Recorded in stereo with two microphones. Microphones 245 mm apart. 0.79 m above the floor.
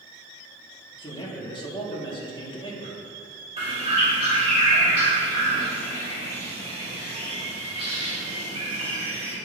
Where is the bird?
25° right (ahead or behind), 2.5 m.